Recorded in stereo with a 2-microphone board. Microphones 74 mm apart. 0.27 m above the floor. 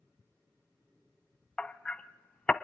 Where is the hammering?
15° left (ahead or behind), 0.8 m.